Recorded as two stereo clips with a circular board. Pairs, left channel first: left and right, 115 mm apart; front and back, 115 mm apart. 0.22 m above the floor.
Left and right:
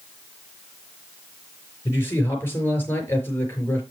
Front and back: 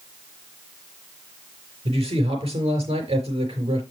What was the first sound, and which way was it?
A man speaking, 160° left.